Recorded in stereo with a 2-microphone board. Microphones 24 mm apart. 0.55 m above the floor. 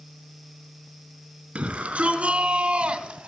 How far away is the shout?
About 4.5 m.